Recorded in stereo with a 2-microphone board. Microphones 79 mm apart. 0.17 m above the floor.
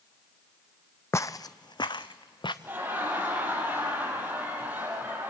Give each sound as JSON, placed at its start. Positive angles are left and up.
{"t": 1.1, "sound": "footsteps", "side_deg": 40, "distance_m": 0.5}
{"t": 2.6, "sound": "laughter", "side_deg": -25, "distance_m": 4.5}